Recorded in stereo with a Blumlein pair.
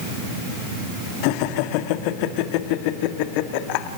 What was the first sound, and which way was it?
Laughter, 45° left.